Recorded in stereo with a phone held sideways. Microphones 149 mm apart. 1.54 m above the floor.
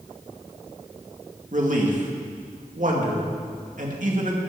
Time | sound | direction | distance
1.5 | a man speaking | 60° right (ahead or behind) | 2 m